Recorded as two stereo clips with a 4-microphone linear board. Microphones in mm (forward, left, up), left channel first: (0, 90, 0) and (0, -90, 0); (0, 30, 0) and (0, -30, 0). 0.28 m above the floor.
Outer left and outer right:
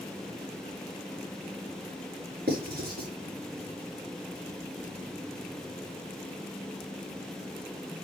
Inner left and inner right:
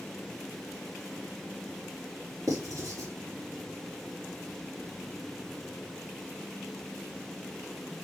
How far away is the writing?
About 5.5 m.